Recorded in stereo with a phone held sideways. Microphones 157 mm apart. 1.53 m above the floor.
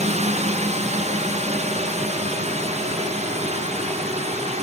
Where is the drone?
45° right (ahead or behind).